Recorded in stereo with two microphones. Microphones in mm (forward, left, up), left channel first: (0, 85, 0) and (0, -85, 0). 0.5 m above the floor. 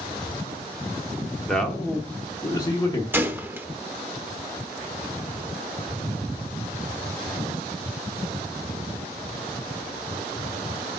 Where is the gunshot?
10° right (ahead or behind), 0.7 m.